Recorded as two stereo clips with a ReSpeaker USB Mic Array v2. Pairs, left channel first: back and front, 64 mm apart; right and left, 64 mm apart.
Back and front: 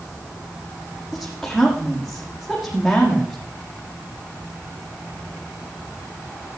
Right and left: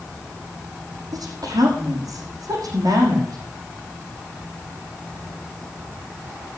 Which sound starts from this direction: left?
A woman speaking, at 1.1 s.